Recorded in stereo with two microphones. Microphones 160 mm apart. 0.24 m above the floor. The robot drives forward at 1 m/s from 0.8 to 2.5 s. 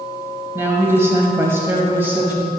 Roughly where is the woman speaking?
Centre.